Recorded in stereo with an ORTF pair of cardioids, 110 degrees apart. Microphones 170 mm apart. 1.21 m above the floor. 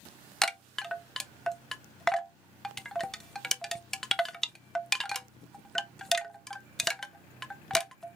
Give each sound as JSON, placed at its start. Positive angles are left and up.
{"t": 0.4, "sound": "a chime", "azimuth_deg": 5, "distance_m": 0.6}